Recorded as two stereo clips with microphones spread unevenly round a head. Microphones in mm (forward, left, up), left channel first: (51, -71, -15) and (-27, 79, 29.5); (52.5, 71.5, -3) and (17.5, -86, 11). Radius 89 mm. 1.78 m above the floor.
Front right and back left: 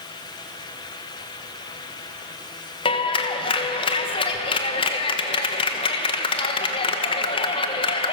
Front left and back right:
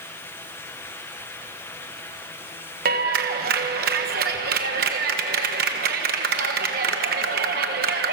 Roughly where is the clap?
Behind right.